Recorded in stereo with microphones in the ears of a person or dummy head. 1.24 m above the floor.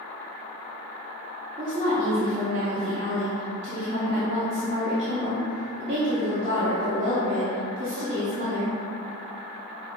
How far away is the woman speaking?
About 0.7 m.